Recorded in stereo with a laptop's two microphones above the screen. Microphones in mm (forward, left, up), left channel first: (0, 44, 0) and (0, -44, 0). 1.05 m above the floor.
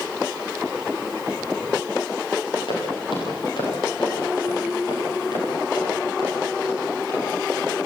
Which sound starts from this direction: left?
Footsteps, at 2.7 s.